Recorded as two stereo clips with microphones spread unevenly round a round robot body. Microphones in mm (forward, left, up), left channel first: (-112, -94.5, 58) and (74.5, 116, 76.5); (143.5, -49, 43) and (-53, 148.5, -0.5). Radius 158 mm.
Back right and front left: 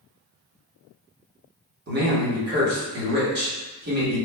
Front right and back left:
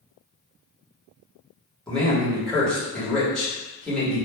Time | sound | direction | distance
1.9 | a man speaking | 55° left | 1.2 m